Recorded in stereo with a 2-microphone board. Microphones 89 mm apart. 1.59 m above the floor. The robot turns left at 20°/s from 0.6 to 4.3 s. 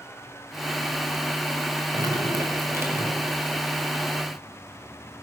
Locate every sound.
1.9 s dripping: 45° right (ahead or behind), 5 m; by 3.4 s 20° right (ahead or behind), 5 m